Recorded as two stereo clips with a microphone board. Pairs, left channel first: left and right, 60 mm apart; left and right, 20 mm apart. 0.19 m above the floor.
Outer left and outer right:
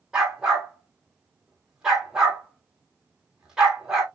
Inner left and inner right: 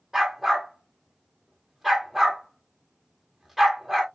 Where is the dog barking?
10° right (ahead or behind), 1.9 m.